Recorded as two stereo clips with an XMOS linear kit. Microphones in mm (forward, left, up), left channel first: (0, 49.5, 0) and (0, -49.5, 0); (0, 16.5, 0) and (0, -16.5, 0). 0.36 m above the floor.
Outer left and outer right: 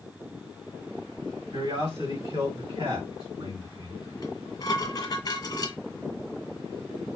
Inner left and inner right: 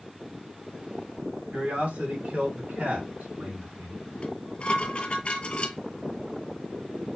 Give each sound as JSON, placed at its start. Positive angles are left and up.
{"t": 1.5, "sound": "a man speaking", "side_deg": -55, "distance_m": 2.0}
{"t": 4.2, "sound": "dishes clattering", "side_deg": 40, "distance_m": 1.2}